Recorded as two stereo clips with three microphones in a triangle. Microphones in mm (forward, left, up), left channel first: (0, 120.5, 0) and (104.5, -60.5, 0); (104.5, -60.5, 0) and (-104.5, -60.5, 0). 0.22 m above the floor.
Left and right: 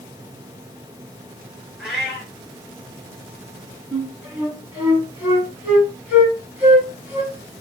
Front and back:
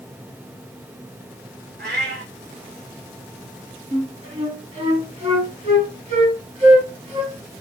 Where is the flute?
140° right, 1.9 m.